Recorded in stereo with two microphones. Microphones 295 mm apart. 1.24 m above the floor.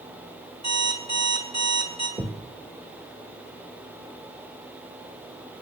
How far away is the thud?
About 1.5 m.